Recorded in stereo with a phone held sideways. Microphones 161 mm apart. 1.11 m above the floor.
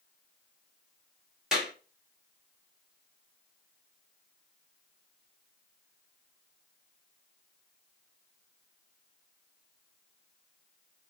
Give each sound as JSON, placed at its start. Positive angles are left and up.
{"t": 1.5, "sound": "a clap", "side_deg": -5, "distance_m": 1.6}